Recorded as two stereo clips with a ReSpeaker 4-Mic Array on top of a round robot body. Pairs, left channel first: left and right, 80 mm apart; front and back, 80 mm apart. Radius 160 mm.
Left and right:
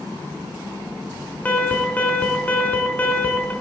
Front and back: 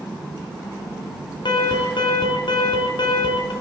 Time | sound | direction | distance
1.4 | an alarm | 20° left | 5.5 m